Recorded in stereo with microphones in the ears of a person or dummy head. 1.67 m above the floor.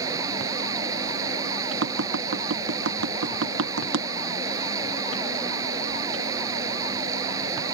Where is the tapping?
75° right (ahead or behind).